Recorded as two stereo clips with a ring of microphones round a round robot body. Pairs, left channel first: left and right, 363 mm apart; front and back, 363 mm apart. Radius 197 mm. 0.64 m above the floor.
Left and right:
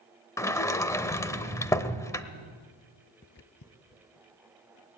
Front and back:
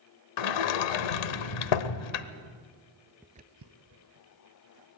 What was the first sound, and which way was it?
A sliding door, 10° left.